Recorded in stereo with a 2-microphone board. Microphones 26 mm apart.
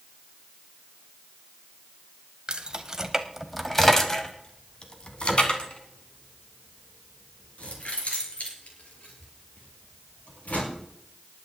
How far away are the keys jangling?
About 1.3 m.